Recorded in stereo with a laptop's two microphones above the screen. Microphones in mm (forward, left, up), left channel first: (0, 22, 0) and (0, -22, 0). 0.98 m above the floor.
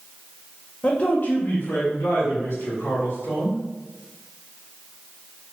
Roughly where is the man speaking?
Left.